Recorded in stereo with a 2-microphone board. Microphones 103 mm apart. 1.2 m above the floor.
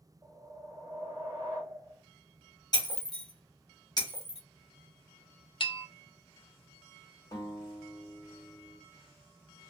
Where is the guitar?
30° left (ahead or behind), 1.3 m.